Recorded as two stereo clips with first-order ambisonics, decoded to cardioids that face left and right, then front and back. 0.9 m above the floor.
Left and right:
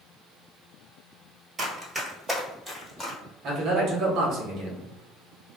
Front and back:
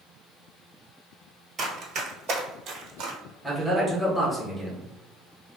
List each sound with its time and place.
1.6 s running footsteps: 140° right, 1.0 m; by 3.2 s 155° left, 1.3 m
3.4 s a man speaking: 90° right, 0.9 m